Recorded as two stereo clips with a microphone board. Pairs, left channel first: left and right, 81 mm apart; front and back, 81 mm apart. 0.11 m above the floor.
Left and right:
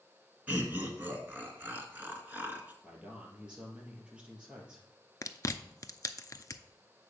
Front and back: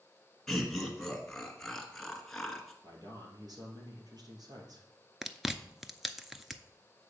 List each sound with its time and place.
0.5 s laughter: 80° right, 1.4 m
2.8 s a man speaking: 165° right, 2.5 m
5.2 s chewing: 95° left, 0.5 m